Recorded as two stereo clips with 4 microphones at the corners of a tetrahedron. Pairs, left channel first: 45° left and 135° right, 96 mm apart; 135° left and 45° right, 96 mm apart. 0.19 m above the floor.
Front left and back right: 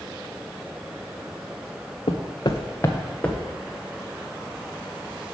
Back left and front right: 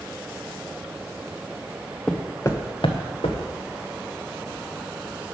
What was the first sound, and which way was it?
Footsteps, 50° left.